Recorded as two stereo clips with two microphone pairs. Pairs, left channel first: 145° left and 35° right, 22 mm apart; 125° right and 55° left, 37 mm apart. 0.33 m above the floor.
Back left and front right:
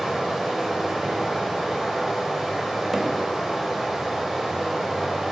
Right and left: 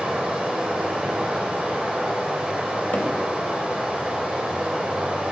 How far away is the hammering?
About 0.5 m.